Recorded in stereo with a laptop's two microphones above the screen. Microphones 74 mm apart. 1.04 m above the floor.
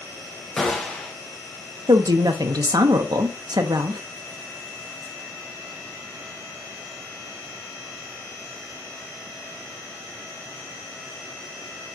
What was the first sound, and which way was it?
A gunshot, 5° left (ahead or behind).